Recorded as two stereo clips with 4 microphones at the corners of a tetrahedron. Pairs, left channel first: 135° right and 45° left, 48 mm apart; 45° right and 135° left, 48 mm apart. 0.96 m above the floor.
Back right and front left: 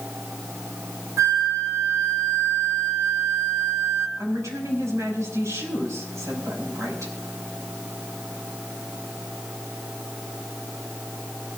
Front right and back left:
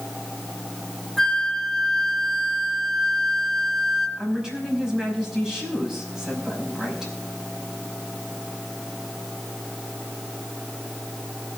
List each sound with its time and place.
1.2 s a flute: 40° left, 2.0 m
4.2 s a woman speaking: 55° left, 5 m